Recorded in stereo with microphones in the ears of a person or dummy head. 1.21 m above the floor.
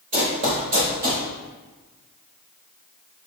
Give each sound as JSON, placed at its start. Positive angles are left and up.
{"t": 0.1, "sound": "running footsteps", "side_deg": -20, "distance_m": 1.2}